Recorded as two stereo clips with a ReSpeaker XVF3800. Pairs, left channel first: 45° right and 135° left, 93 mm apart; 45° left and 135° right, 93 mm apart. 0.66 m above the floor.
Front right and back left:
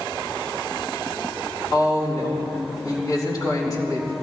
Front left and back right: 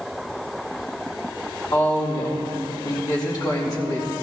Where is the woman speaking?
Straight ahead, 4 m.